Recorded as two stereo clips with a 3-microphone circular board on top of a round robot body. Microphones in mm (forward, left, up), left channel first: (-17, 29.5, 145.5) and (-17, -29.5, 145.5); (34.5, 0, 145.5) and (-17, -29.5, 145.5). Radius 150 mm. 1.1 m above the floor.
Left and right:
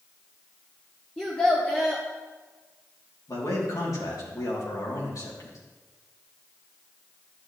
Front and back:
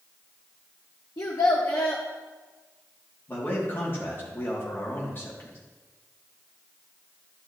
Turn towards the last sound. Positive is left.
turn(degrees=80)